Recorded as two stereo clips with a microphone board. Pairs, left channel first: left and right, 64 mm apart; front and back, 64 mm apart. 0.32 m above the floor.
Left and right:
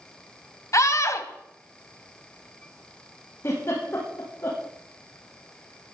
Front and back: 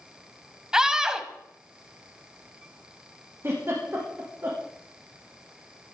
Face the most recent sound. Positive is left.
turn(degrees=135)